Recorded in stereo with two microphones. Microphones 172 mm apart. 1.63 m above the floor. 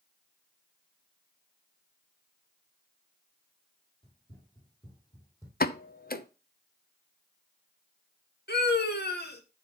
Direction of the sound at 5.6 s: 60° left (ahead or behind).